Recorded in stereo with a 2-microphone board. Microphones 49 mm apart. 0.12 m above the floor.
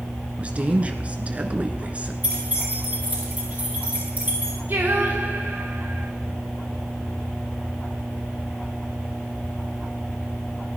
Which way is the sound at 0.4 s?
30° right (ahead or behind).